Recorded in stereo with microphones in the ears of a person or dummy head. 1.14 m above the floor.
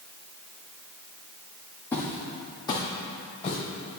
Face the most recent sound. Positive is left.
turn(degrees=35)  # may be behind; listen again after turning